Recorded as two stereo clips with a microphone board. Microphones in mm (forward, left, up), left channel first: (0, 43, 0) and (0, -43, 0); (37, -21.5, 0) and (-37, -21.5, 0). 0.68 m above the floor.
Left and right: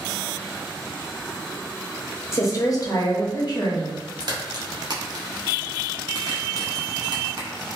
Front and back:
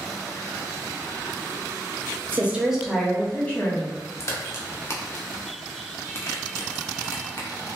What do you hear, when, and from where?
2.3 s a woman speaking: 130° left, 0.6 m; by 4.0 s 60° left, 1.0 m
4.2 s a crack: 55° right, 0.6 m